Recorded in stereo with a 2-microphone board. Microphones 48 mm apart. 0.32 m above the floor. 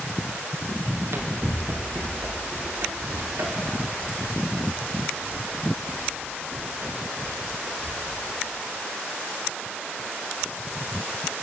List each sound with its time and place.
0.9 s running footsteps: 65° right (ahead or behind), 3 m; by 8.0 s 55° right (ahead or behind), 9.5 m